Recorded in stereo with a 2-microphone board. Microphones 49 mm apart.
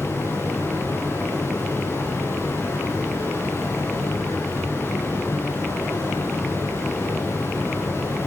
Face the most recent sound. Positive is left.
turn(degrees=50)  # may be behind; listen again after turning